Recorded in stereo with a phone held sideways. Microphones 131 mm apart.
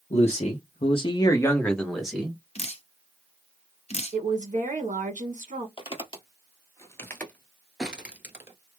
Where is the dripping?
55° left (ahead or behind), 0.6 m.